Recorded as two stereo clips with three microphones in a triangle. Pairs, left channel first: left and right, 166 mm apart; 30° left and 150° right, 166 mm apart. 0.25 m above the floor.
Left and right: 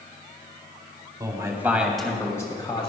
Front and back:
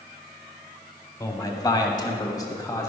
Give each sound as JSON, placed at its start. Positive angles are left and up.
{"t": 1.2, "sound": "a man speaking", "azimuth_deg": -30, "distance_m": 1.4}